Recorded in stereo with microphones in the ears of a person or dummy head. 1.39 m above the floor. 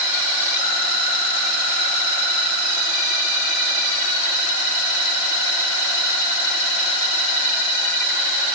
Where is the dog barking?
No dog barking in this recording.